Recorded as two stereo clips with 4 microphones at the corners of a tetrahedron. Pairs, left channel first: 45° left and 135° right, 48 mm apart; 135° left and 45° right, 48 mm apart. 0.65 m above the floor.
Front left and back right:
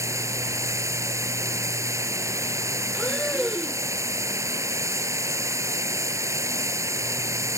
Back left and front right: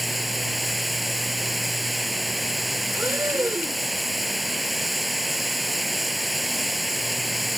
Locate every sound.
0.0 s running water: 135° right
2.9 s breathing: 35° right